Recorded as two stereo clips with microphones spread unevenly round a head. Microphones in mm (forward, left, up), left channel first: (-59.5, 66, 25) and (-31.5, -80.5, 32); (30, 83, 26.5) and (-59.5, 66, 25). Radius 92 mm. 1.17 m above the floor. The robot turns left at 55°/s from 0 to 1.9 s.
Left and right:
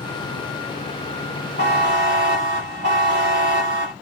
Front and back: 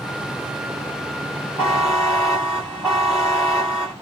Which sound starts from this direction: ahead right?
A buzzer, at 1.6 s.